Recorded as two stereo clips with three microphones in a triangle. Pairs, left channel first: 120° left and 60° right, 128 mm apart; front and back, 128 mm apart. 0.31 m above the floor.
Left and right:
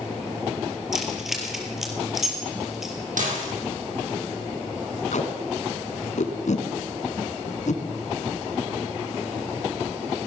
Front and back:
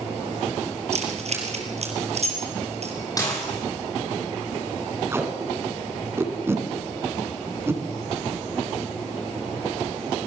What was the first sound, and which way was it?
Keys jangling, 145° right.